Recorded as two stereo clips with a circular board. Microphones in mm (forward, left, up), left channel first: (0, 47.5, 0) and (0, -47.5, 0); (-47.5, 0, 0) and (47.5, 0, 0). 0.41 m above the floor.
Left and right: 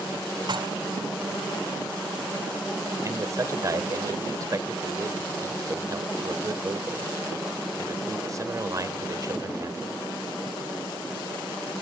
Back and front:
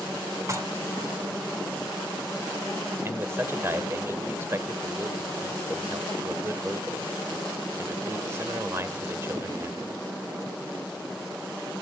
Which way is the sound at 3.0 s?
55° right.